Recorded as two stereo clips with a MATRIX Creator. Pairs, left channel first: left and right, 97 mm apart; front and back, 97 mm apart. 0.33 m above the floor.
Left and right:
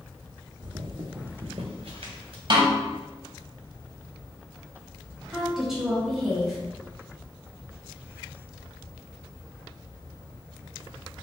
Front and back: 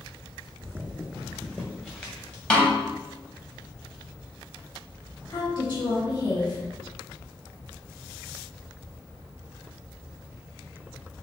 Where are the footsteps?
125° right, 0.7 m; by 2.4 s 70° right, 2 m.